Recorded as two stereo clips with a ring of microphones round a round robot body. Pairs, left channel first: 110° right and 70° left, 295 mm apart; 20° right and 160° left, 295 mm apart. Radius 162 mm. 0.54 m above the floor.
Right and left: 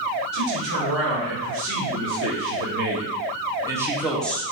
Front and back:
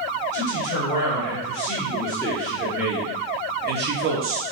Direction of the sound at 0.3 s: 35° left.